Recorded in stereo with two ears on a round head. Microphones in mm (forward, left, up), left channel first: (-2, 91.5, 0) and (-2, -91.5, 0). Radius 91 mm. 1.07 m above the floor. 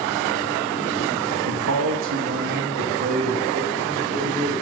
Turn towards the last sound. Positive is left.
turn(degrees=-30)  # may be behind; listen again after turning